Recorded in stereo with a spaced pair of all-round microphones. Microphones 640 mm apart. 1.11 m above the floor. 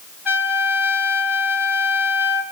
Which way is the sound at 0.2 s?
40° left (ahead or behind).